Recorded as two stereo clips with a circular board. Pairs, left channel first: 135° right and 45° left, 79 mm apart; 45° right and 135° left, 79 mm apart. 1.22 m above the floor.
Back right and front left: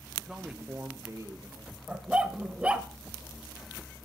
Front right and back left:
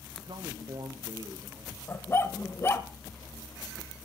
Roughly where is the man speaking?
Behind left.